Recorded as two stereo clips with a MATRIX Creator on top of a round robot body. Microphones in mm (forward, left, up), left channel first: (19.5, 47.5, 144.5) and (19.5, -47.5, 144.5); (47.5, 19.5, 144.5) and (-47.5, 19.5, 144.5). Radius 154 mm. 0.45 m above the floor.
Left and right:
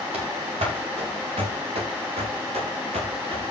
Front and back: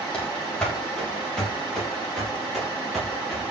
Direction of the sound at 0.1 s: 80° right.